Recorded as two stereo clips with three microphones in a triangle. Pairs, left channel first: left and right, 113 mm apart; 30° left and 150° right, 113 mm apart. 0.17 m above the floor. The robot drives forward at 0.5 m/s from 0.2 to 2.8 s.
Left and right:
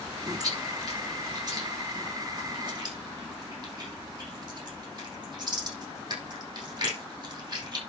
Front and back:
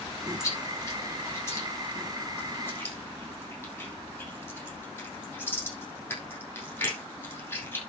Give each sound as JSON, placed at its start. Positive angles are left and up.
{"t": 0.4, "sound": "chewing", "azimuth_deg": -35, "distance_m": 7.5}